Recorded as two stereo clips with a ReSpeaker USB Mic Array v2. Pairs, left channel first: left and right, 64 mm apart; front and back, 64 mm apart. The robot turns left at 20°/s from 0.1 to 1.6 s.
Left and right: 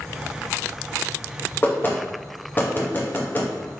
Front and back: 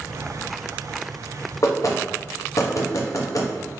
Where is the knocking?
30° left, 0.5 m.